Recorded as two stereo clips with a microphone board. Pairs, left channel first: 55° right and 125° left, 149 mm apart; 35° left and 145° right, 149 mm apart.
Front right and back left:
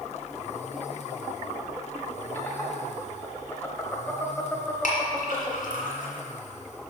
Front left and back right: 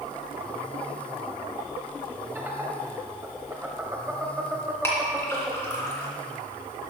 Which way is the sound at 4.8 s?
35° right.